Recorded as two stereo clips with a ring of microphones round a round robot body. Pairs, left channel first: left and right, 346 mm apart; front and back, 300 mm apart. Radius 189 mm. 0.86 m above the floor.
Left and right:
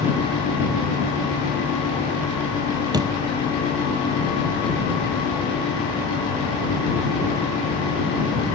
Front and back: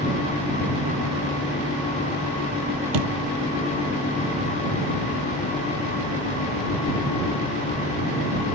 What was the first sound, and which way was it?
A door slam, 170° right.